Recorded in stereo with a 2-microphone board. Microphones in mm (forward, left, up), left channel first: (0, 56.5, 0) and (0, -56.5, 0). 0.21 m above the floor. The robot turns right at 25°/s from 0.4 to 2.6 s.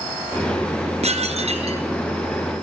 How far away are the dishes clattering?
About 2 m.